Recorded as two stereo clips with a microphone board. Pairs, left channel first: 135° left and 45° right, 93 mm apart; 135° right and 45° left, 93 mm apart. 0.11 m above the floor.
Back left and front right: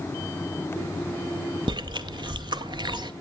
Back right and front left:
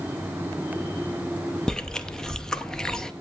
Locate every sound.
1.7 s chewing: 55° right, 0.5 m